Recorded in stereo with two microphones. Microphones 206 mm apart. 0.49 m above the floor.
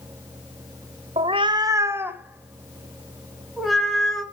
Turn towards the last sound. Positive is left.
turn(degrees=0)  # may be behind; listen again after turning